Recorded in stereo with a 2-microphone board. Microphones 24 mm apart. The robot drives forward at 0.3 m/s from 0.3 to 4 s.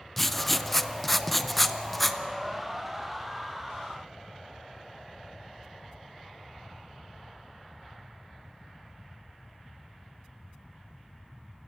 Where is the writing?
5° left (ahead or behind), 0.6 m.